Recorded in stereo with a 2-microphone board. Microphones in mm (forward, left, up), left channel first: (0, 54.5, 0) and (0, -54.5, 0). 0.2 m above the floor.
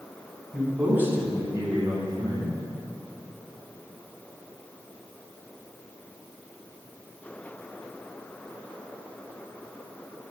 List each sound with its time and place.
0.5 s a man speaking: 10° right (ahead or behind), 2 m; by 2.6 s 40° right (ahead or behind), 2.0 m